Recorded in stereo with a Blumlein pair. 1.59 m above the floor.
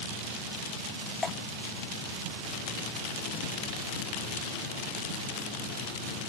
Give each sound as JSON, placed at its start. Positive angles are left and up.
{"t": 1.2, "sound": "dripping", "azimuth_deg": 15}